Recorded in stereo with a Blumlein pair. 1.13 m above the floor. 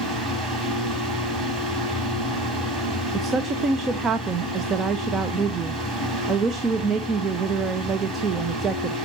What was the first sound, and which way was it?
A fan, 15° right.